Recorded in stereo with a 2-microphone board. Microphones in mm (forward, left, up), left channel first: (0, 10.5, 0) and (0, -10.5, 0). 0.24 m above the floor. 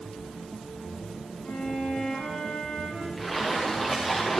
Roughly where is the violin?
Left.